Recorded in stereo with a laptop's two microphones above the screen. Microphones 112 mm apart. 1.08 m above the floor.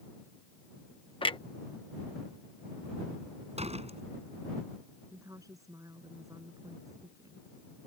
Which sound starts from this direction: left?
A clunk, at 1.2 s.